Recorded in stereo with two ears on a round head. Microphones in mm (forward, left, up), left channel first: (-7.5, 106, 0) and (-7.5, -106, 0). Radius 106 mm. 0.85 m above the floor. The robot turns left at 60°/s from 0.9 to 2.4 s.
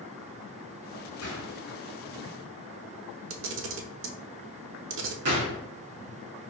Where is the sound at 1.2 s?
65° left (ahead or behind), 2 m; by 1.6 s 55° left (ahead or behind), 2 m.